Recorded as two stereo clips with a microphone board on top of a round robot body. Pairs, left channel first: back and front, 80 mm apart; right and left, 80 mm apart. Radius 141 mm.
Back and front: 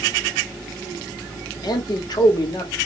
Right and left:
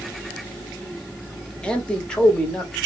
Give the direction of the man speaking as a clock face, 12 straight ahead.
6 o'clock.